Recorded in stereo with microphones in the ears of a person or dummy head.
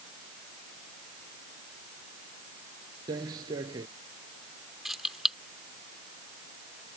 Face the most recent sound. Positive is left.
turn(degrees=-5)  # may be behind; listen again after turning